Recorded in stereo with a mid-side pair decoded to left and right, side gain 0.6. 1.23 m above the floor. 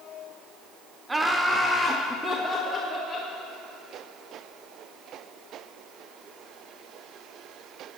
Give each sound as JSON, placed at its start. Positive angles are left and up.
{"t": 1.1, "sound": "laughter", "azimuth_deg": -15, "distance_m": 0.7}